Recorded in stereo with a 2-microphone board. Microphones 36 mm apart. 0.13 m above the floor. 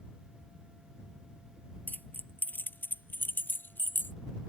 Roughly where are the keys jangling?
Left.